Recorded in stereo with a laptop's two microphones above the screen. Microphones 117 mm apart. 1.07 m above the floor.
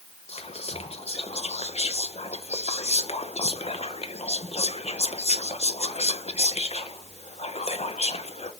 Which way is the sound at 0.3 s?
65° left (ahead or behind).